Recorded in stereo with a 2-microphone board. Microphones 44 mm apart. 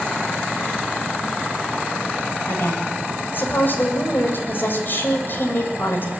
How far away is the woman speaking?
About 9 m.